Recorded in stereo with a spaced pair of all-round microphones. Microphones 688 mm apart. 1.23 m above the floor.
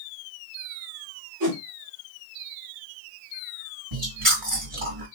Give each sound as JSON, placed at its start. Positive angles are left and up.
{"t": 1.4, "sound": "a whoosh", "side_deg": -30, "distance_m": 2.0}
{"t": 3.9, "sound": "chewing", "side_deg": -45, "distance_m": 2.0}